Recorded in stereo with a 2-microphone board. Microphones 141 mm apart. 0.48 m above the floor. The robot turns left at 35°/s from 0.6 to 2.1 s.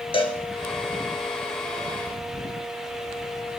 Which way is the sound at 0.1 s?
40° left (ahead or behind).